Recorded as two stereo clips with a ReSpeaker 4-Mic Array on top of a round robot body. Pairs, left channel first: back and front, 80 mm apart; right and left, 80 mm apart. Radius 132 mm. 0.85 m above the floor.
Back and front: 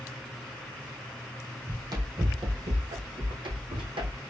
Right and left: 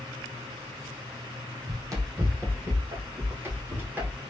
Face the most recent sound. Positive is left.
turn(degrees=20)